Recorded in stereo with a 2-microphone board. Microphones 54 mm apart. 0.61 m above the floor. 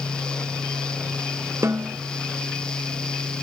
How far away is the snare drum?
About 0.7 m.